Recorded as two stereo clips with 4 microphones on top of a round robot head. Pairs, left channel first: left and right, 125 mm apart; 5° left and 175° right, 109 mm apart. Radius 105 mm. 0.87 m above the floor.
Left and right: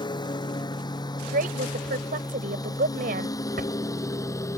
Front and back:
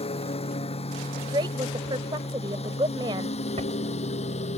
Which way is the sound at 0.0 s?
35° left.